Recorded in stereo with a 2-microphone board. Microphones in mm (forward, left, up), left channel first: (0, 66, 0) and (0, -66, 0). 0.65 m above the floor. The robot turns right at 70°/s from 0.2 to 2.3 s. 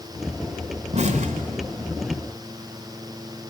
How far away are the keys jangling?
I don't hear keys jangling.